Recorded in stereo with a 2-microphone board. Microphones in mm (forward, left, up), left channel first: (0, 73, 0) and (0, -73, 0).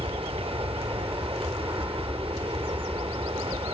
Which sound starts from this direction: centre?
An aircraft, at 0.0 s.